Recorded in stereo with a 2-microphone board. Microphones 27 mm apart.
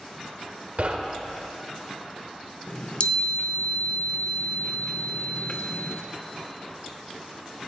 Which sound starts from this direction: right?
Knocking, at 0.8 s.